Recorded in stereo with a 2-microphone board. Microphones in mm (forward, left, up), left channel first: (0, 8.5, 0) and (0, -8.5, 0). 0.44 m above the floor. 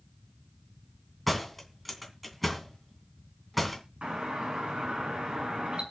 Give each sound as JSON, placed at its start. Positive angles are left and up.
{"t": 1.3, "sound": "a door slam", "side_deg": 5, "distance_m": 2.5}
{"t": 4.0, "sound": "a doorbell", "side_deg": -65, "distance_m": 6.0}